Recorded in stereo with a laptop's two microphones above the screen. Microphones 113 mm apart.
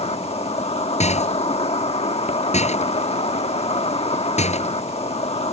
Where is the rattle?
85° left.